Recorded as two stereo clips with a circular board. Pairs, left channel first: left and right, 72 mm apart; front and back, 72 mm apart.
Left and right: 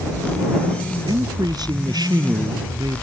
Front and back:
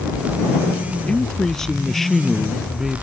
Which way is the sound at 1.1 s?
80° right.